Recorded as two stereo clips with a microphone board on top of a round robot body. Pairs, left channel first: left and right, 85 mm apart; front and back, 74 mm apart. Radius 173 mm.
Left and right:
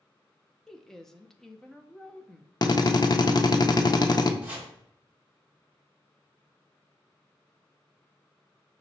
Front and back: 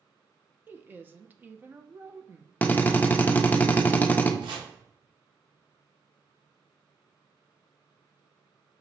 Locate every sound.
0.7 s a woman speaking: 170° left, 0.7 m
2.6 s a drill: 60° left, 0.6 m
4.4 s chopping: 160° right, 0.6 m